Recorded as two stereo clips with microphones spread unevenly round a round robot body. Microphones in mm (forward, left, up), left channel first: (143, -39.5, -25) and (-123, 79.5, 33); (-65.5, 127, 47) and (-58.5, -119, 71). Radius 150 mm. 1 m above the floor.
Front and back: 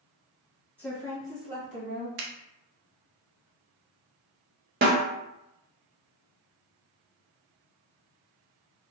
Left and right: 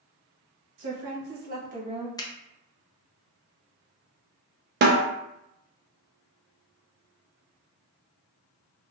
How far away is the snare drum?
About 0.6 m.